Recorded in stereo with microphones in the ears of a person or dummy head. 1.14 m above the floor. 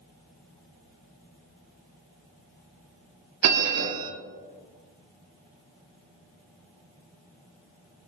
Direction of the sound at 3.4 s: 80° right.